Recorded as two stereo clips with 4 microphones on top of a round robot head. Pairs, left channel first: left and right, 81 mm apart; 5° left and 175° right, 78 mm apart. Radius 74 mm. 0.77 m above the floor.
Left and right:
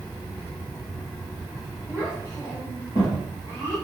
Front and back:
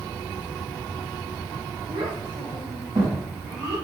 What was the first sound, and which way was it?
A child speaking, 155° left.